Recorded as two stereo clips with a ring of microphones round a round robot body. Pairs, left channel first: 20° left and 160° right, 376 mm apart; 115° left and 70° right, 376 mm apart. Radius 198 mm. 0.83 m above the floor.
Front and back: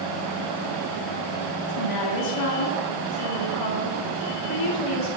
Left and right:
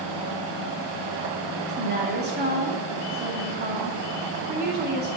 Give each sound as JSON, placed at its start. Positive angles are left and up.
{"t": 1.6, "sound": "a woman speaking", "azimuth_deg": -5, "distance_m": 2.5}